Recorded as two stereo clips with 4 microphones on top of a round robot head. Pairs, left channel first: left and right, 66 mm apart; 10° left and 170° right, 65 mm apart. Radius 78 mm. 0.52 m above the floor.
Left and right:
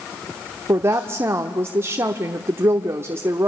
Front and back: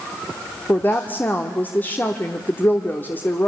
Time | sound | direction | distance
0.7 | a woman speaking | 50° right | 1.1 m